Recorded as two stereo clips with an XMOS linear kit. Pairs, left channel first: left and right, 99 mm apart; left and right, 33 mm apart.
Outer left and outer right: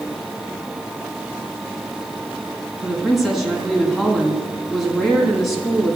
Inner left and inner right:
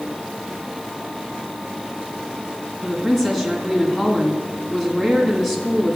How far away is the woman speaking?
About 2 m.